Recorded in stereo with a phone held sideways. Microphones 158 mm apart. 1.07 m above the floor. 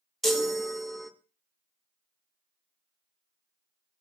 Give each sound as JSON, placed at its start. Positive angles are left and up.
{"t": 0.2, "sound": "a chime", "side_deg": 0, "distance_m": 0.7}